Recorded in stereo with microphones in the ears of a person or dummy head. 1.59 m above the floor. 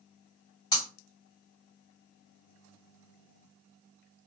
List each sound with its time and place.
0.7 s breaking glass: 20° left (ahead or behind), 2.0 m